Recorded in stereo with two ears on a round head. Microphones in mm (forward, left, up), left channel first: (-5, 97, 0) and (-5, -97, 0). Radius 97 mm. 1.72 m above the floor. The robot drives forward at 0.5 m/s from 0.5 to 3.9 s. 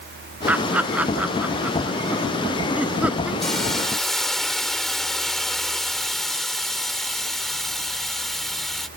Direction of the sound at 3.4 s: Centre (ahead or behind).